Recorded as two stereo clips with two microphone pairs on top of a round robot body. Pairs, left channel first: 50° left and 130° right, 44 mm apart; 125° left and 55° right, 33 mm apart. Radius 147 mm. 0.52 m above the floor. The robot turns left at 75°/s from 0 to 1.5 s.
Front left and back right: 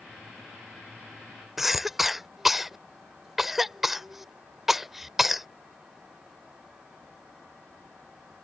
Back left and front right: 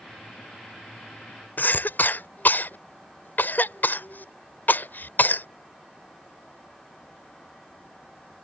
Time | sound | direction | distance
1.6 | a cough | 145° left | ?